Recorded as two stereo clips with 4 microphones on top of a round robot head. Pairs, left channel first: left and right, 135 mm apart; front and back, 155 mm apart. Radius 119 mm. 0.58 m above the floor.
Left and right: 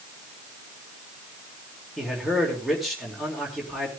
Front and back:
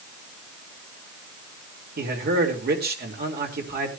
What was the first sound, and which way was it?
A man speaking, straight behind.